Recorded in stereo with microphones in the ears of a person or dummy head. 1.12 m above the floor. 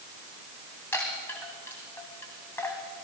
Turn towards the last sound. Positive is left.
turn(degrees=10)  # may be behind; listen again after turning